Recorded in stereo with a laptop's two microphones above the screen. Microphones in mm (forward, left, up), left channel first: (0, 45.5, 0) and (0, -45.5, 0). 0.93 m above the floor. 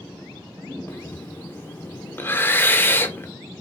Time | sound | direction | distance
0.9 | breathing | 25° left (ahead or behind) | 0.7 m